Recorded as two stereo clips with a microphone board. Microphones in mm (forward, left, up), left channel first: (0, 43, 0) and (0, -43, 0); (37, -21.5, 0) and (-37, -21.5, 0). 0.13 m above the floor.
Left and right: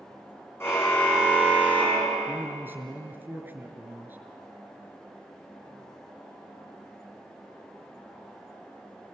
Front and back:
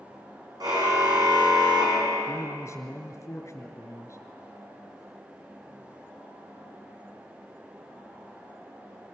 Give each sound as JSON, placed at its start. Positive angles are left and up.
{"t": 0.6, "sound": "a car horn", "azimuth_deg": 155, "distance_m": 4.5}
{"t": 2.3, "sound": "a man speaking", "azimuth_deg": -30, "distance_m": 1.9}